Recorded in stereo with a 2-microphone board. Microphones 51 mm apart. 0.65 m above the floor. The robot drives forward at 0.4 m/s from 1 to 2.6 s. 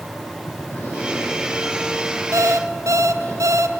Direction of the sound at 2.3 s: 85° right.